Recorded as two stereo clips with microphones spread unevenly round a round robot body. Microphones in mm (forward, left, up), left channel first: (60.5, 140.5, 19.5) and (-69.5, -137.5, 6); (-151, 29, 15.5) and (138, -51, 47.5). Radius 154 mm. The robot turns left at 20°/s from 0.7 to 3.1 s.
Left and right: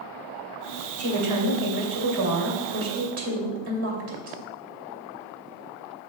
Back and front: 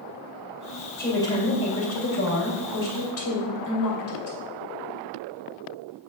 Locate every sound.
1.0 s a woman speaking: 115° right, 2.5 m; by 4.4 s 155° right, 2.5 m